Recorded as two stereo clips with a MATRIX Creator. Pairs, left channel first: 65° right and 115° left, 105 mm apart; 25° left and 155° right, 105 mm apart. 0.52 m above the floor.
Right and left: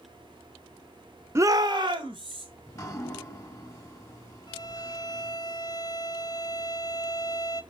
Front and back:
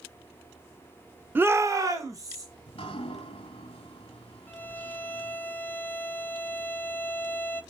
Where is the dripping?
10° right, 1.3 m.